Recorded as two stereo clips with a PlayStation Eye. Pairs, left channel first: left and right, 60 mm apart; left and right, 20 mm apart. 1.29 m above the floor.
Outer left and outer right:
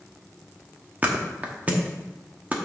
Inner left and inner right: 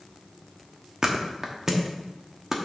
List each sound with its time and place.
1.0 s a thud: 25° right (ahead or behind), 1.0 m